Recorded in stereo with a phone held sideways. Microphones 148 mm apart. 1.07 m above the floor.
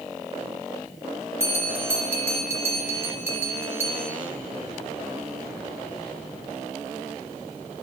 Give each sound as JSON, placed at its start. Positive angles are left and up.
{"t": 1.4, "sound": "a bell", "side_deg": -15, "distance_m": 1.7}